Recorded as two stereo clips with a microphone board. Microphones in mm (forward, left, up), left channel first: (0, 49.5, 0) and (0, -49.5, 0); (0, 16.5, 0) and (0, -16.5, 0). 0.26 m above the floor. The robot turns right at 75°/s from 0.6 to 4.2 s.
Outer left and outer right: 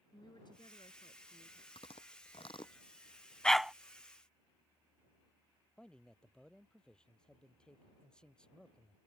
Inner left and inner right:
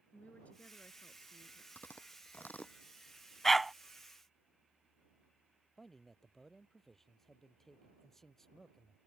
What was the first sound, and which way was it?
A woman speaking, 55° left.